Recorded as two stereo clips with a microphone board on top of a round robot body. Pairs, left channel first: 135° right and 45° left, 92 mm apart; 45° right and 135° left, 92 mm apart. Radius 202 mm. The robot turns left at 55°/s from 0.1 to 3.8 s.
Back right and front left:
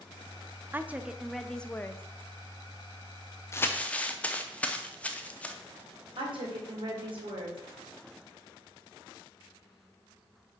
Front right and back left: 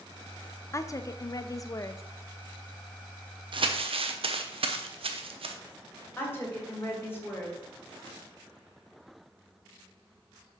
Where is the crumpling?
165° left, 0.7 m; by 5.5 s 150° left, 0.7 m.